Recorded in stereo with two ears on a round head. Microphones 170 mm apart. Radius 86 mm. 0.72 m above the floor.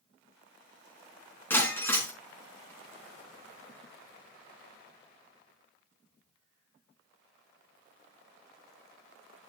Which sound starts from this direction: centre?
Breaking glass, at 1.5 s.